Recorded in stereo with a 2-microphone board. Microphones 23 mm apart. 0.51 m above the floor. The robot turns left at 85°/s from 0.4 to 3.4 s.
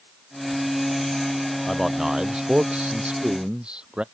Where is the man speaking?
15° left; by 4.0 s 135° right.